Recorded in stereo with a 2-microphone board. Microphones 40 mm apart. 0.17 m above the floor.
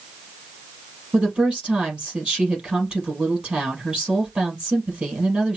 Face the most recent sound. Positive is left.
turn(degrees=-30)  # may be behind; listen again after turning